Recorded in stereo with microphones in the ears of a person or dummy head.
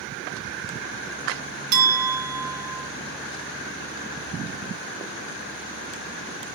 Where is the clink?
50° right (ahead or behind), 1.3 m.